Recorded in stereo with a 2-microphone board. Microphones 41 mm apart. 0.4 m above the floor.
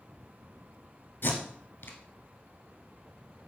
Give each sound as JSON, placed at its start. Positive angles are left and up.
{"t": 1.2, "sound": "tape being pulled", "side_deg": 65, "distance_m": 1.1}